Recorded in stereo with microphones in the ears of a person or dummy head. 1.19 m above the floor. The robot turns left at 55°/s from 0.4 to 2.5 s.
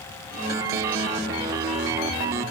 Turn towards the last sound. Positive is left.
No sound to turn to.